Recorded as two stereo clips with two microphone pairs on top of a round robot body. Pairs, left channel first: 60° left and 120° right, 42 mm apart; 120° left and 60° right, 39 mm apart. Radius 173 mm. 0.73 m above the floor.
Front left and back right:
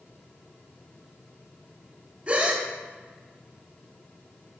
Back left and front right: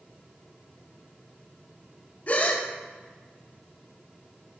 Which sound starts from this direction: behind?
A gasp, at 2.3 s.